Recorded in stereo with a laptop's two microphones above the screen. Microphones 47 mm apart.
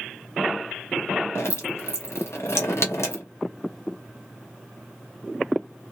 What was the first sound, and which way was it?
Dripping, 80° left.